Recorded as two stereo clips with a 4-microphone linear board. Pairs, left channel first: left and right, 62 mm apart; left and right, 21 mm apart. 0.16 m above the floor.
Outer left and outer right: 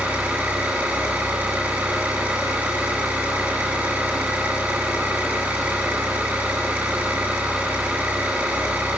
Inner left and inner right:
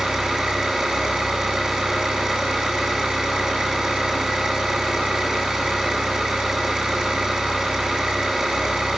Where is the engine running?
20° right (ahead or behind), 8.5 m.